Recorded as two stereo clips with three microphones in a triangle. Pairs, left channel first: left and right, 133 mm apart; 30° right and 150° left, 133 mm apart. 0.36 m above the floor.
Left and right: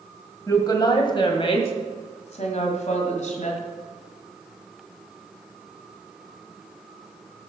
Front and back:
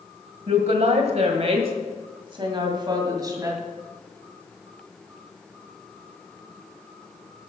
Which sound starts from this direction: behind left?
A woman speaking, at 0.5 s.